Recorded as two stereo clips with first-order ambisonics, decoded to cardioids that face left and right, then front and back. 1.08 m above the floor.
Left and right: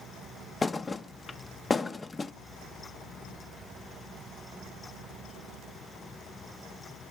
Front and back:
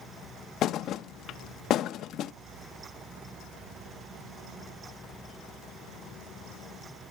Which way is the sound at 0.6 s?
20° left.